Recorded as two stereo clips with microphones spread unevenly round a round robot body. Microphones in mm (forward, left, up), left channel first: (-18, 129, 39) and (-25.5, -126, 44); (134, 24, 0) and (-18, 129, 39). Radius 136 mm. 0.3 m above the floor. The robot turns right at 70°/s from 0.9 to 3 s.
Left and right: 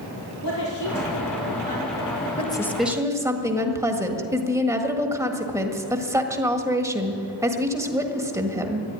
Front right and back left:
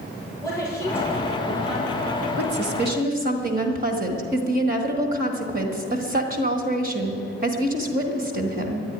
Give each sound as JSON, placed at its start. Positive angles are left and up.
{"t": 0.4, "sound": "a woman speaking", "azimuth_deg": 40, "distance_m": 7.5}
{"t": 2.4, "sound": "a woman speaking", "azimuth_deg": 150, "distance_m": 1.7}